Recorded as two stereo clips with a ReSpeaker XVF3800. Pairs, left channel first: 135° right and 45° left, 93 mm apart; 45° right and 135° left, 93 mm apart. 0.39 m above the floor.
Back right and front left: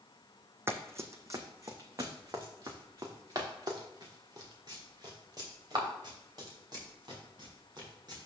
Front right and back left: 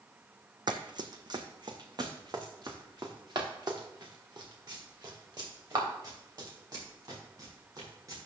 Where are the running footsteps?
105° left, 0.9 m; by 8.2 s 90° left, 5 m.